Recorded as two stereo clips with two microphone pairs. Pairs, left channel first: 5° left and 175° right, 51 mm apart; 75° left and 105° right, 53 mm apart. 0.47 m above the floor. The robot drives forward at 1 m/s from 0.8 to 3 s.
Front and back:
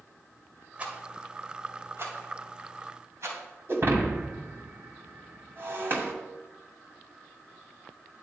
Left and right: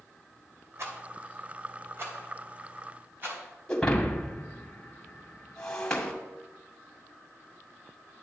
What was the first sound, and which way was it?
A rattle, 115° right.